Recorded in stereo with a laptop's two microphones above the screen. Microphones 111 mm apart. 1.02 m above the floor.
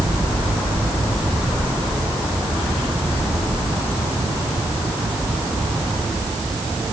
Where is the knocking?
No knocking in this recording.